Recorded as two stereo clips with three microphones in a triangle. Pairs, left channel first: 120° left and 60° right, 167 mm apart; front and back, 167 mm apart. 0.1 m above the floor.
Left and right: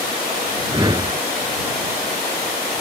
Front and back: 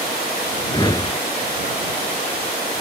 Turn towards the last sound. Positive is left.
turn(degrees=-30)